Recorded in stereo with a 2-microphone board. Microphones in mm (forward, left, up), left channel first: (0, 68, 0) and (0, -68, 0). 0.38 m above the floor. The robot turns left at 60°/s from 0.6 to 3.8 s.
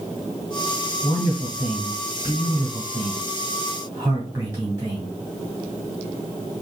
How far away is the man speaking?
About 1.5 m.